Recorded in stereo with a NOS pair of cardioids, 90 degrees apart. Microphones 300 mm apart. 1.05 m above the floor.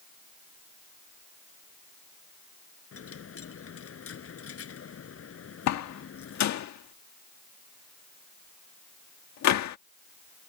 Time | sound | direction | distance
2.9 | a dropped coin | 50° left | ?
5.7 | a door slam | 65° left | ?